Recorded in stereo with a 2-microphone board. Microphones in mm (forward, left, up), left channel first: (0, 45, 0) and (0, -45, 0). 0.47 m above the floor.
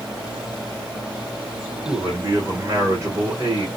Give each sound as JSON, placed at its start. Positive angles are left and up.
{"t": 1.9, "sound": "a man speaking", "side_deg": -30, "distance_m": 1.3}